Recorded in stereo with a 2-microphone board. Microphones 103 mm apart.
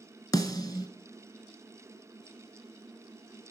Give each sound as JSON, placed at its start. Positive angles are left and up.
{"t": 0.3, "sound": "a snare drum", "side_deg": 35, "distance_m": 1.0}